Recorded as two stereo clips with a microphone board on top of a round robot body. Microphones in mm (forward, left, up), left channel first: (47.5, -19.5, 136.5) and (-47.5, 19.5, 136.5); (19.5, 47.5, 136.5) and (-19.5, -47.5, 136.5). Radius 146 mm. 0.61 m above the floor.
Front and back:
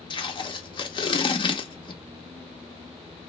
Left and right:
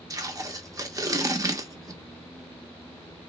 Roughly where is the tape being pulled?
Ahead right.